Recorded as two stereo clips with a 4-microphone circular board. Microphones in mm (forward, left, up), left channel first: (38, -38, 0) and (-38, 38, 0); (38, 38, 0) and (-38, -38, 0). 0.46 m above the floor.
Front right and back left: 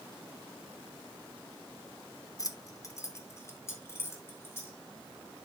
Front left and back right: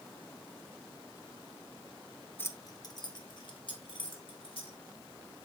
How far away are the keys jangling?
About 0.7 m.